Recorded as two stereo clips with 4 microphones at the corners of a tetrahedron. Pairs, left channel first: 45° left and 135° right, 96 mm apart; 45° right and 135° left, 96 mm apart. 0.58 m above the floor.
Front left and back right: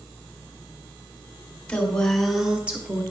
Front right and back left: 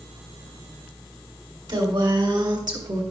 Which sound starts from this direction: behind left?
A woman speaking, at 1.7 s.